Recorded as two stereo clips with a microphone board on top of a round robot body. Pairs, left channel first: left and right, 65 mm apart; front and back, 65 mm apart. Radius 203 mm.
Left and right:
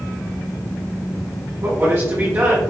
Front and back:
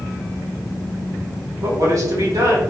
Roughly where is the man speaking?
Behind right.